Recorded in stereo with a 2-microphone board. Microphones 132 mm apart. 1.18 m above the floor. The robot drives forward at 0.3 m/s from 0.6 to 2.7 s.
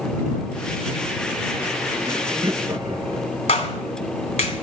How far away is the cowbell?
I don't hear a cowbell.